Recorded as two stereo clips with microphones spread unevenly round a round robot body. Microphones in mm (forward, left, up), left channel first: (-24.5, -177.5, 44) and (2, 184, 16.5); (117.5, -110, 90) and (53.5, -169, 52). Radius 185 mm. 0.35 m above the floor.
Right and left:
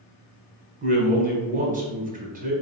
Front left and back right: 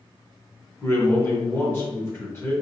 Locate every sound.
0.8 s a man speaking: 125° left, 1.0 m